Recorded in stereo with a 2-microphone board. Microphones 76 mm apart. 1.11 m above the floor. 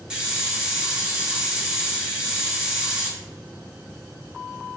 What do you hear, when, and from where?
0.1 s a hiss: 10° right (ahead or behind), 0.9 m